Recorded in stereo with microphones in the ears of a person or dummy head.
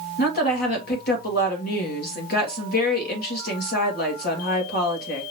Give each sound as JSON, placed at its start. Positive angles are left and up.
{"t": 0.2, "sound": "a woman speaking", "side_deg": 50, "distance_m": 2.0}